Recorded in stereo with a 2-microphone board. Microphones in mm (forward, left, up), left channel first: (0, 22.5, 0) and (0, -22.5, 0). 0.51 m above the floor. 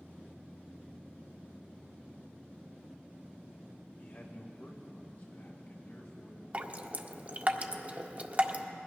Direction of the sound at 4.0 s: 45° left (ahead or behind).